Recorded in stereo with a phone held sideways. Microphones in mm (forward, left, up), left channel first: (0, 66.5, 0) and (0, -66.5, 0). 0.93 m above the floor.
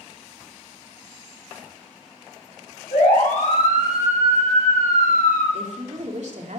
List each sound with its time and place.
2.9 s a siren: 85° left, 8.5 m; by 5.4 s 75° left (ahead or behind), 10 m
5.5 s a woman speaking: 65° right (ahead or behind), 2.5 m